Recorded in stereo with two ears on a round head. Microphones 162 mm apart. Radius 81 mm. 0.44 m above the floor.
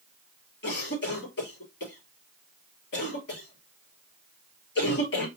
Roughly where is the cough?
Left.